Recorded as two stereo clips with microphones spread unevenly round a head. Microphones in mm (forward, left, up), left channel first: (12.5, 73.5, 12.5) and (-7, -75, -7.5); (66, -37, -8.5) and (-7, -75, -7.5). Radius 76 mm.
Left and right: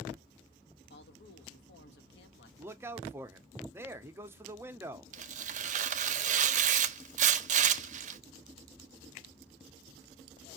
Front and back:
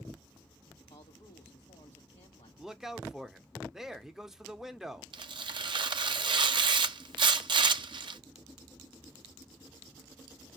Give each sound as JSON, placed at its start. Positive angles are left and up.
{"t": 0.9, "sound": "a man speaking", "azimuth_deg": 70, "distance_m": 1.4}
{"t": 2.6, "sound": "a man speaking", "azimuth_deg": -70, "distance_m": 0.7}
{"t": 5.1, "sound": "tearing paper", "azimuth_deg": -135, "distance_m": 0.6}